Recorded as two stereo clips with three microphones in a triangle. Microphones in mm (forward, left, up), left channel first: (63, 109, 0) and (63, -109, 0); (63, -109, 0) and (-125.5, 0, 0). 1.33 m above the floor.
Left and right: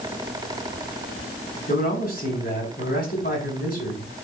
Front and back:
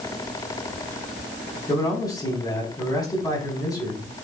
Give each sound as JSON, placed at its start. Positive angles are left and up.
{"t": 1.7, "sound": "a man speaking", "azimuth_deg": 45, "distance_m": 5.0}